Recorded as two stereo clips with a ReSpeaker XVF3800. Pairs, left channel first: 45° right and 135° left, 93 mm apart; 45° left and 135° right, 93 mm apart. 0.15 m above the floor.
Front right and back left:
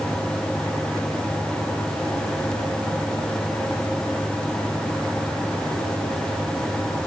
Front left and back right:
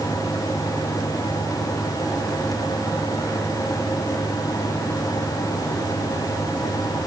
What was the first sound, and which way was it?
Only background noise.